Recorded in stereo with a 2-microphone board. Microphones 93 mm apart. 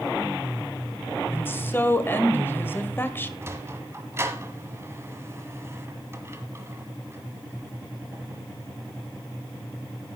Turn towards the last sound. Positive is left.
turn(degrees=-30)  # may be behind; listen again after turning